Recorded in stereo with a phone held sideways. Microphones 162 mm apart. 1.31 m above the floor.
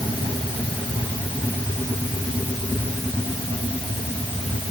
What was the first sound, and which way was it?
Only background noise.